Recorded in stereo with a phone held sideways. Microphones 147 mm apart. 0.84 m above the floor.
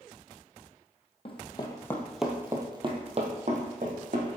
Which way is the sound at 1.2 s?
40° left (ahead or behind).